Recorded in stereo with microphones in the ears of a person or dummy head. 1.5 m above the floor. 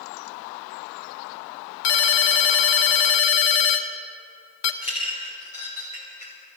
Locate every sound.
1.8 s a ringtone: 60° left (ahead or behind), 0.9 m
4.8 s a clink: 35° left (ahead or behind), 3 m